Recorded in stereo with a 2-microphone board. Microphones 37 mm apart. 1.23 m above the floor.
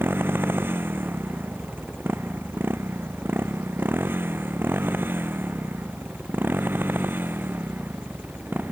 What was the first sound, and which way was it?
A motorcycle, 85° right.